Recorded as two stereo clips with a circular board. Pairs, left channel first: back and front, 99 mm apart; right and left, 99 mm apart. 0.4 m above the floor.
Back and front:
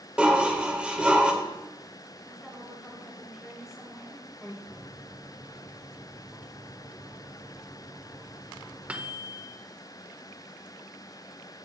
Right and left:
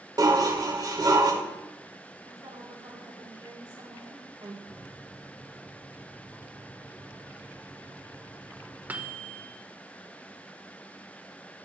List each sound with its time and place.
0.2 s dishes clattering: 75° left, 0.7 m
2.2 s a woman speaking: 85° left, 1.6 m
4.7 s a microwave: 50° left, 0.6 m